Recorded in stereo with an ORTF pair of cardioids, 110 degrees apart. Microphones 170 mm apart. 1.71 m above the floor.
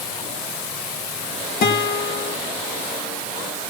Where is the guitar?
60° left, 3 m.